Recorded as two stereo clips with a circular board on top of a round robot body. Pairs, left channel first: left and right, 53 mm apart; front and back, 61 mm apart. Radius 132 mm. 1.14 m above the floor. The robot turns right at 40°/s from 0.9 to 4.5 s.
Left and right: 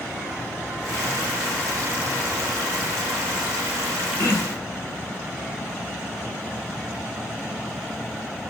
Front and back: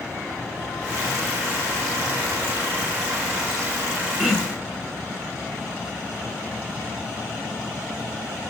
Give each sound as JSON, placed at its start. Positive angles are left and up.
{"t": 4.2, "sound": "throat clearing", "azimuth_deg": 85, "distance_m": 1.6}